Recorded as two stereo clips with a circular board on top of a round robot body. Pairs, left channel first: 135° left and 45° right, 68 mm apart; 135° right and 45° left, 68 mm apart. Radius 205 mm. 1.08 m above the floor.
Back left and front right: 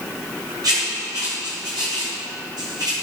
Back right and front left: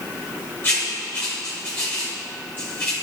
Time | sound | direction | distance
0.6 | writing | 75° right | 1.3 m